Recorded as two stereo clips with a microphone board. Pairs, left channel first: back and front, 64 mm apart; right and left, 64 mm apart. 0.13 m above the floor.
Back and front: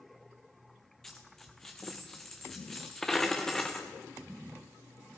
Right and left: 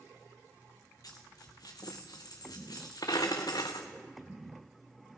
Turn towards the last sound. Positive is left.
turn(degrees=-95)